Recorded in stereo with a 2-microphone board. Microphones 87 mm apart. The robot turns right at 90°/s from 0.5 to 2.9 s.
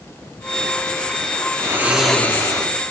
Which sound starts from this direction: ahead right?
Snoring, at 1.6 s.